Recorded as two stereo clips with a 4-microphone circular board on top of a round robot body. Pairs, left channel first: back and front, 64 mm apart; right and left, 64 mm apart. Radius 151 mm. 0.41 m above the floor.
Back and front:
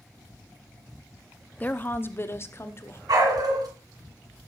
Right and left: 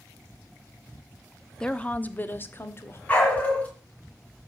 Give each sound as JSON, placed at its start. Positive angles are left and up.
{"t": 1.6, "sound": "a woman speaking", "azimuth_deg": -155, "distance_m": 1.0}
{"t": 3.1, "sound": "a dog barking", "azimuth_deg": -20, "distance_m": 2.5}